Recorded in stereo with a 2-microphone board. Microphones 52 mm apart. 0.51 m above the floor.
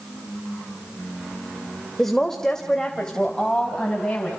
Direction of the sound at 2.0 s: 10° left (ahead or behind).